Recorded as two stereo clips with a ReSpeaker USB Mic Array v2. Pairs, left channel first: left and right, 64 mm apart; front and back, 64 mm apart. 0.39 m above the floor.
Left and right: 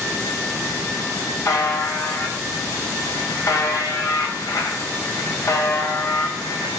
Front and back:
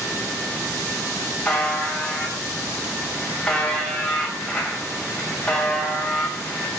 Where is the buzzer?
75° left, 2.5 m.